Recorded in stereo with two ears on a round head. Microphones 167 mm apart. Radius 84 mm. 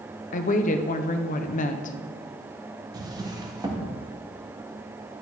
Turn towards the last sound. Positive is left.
turn(degrees=-20)  # may be behind; listen again after turning